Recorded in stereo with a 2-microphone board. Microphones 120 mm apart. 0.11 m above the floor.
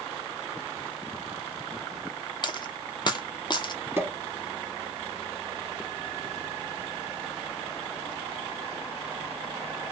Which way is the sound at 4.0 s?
20° right (ahead or behind).